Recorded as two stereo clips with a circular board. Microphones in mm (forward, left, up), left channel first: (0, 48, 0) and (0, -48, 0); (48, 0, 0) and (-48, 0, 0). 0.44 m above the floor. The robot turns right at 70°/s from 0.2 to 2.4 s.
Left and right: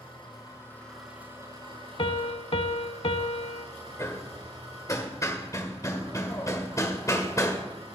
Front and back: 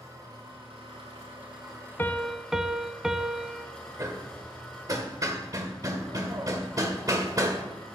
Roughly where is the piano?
Ahead left.